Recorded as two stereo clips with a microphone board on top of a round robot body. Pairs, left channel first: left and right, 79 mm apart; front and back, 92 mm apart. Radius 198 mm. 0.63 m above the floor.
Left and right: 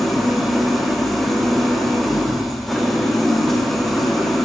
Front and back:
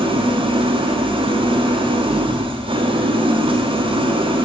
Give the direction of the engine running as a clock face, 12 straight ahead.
6 o'clock.